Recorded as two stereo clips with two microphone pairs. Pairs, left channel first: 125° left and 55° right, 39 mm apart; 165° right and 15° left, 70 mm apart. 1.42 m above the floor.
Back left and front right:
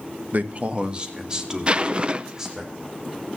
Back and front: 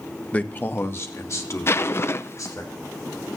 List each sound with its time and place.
0.3 s a man speaking: 95° right, 1.0 m; by 2.7 s 130° right, 4 m
1.7 s a zipper: 115° right, 0.6 m